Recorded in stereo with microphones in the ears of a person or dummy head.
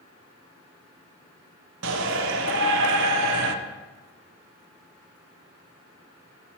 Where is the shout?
65° right (ahead or behind), 0.6 m.